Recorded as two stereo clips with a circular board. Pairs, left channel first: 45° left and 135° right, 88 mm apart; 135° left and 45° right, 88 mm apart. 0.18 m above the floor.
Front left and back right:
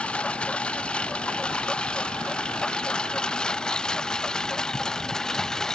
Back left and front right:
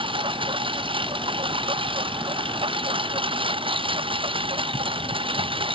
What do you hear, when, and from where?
0.0 s a lawn mower: 30° right; by 5.8 s 40° right